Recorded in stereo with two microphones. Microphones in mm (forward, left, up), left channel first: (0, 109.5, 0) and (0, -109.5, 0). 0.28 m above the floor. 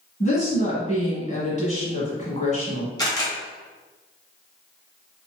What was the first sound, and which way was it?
A woman speaking, 35° left (ahead or behind).